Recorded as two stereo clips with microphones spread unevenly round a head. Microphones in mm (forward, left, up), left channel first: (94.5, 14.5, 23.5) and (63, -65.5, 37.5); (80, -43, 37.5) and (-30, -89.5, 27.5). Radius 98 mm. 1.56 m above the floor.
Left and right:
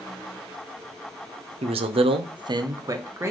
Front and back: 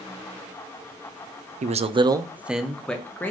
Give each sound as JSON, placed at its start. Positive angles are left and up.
{"t": 1.6, "sound": "a man speaking", "azimuth_deg": -135, "distance_m": 0.6}